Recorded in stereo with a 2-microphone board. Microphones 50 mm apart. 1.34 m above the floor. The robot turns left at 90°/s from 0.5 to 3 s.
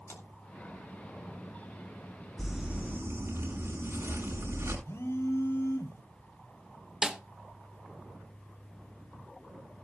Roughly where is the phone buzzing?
Left.